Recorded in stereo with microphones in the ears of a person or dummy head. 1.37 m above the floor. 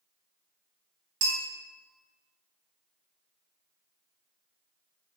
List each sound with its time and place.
1.2 s a bell: 75° right (ahead or behind), 1.1 m